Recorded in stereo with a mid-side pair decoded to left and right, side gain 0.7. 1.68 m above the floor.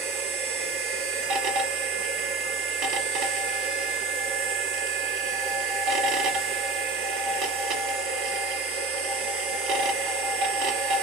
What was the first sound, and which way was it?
A machine running, 65° right.